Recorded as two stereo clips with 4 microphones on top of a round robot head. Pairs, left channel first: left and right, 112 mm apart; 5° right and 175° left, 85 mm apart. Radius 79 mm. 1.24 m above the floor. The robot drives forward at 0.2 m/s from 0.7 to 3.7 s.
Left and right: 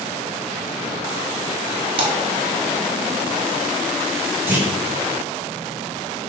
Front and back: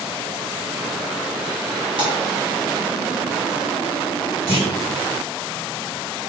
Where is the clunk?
160° right, 1.8 m.